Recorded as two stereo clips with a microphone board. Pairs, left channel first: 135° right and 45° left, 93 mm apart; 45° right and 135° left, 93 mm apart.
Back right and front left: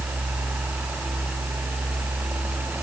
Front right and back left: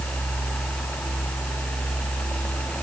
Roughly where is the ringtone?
No ringtone in this recording.